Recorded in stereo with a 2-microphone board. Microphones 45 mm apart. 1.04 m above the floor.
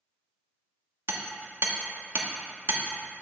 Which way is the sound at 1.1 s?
60° right (ahead or behind).